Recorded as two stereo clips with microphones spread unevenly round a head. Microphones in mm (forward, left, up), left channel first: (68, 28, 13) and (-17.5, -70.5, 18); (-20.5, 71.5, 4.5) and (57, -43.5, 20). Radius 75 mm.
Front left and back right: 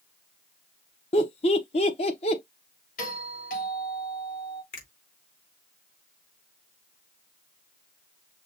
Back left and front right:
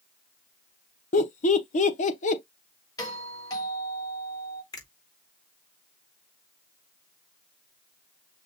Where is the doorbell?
65° left, 3.5 m.